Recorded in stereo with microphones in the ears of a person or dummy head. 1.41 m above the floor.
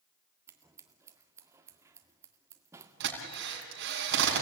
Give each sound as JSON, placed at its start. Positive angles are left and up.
{"t": 0.5, "sound": "scissors", "side_deg": -15, "distance_m": 1.8}
{"t": 3.0, "sound": "a drill", "side_deg": -65, "distance_m": 5.5}